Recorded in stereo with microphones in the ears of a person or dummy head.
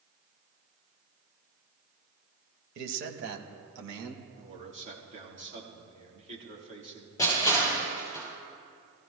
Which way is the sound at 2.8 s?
60° right (ahead or behind).